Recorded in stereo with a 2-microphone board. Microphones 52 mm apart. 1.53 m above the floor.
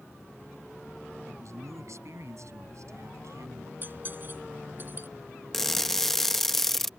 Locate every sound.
1.3 s a man speaking: 65° right (ahead or behind); by 3.7 s 75° right (ahead or behind)
3.8 s cutlery clinking: 40° right (ahead or behind)
5.5 s crushing: 5° left (ahead or behind)